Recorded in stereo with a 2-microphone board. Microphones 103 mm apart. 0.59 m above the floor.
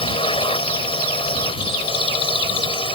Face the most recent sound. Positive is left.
turn(degrees=55)  # may be behind; listen again after turning